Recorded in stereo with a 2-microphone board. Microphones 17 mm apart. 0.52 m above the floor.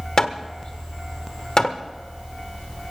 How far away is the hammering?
About 1.2 m.